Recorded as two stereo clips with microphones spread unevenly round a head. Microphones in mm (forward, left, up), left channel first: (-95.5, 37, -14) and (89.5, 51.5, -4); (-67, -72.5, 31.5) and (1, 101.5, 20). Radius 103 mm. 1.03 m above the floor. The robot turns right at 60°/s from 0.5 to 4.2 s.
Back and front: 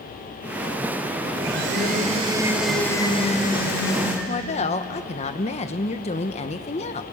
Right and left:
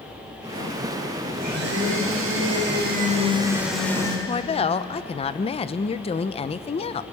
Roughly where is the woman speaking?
Behind right.